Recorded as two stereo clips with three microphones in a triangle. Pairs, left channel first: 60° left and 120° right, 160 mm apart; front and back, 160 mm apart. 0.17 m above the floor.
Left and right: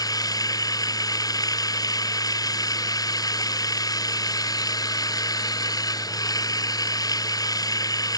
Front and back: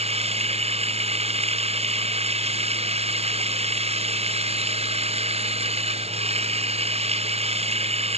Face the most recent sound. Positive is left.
turn(degrees=130)